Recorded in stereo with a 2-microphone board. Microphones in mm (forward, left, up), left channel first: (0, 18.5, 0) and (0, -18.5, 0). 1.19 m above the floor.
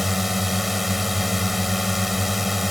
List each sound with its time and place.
0.0 s a drone: 5° right (ahead or behind)